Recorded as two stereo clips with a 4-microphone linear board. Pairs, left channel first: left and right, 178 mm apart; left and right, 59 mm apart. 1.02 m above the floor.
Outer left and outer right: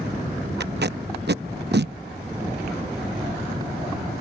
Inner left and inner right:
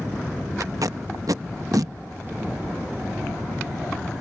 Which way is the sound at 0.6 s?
70° right (ahead or behind).